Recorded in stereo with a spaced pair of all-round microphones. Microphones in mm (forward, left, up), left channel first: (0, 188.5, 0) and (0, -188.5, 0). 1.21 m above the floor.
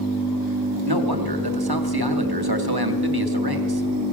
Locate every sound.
0.9 s a man speaking: 70° right (ahead or behind), 2.5 m